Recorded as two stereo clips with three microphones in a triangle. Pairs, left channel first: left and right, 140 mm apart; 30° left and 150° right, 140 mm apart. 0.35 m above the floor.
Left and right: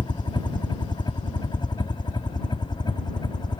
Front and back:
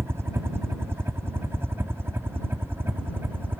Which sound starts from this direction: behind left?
A helicopter, at 0.0 s.